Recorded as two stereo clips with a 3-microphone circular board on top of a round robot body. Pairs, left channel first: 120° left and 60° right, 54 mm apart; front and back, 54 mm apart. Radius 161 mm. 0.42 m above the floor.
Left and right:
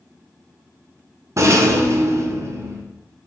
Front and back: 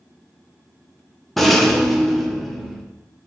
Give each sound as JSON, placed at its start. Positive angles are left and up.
{"t": 1.4, "sound": "a rattle", "azimuth_deg": -85, "distance_m": 1.3}